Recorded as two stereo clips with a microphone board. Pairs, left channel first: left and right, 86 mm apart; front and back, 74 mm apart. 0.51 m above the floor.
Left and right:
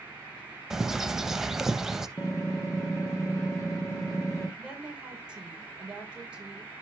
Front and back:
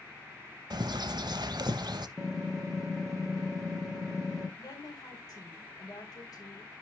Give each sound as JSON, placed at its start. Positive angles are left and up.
{"t": 0.7, "sound": "a bird", "azimuth_deg": -175, "distance_m": 0.5}
{"t": 2.2, "sound": "typing on a keyboard", "azimuth_deg": 95, "distance_m": 1.4}
{"t": 4.6, "sound": "a woman speaking", "azimuth_deg": -10, "distance_m": 2.0}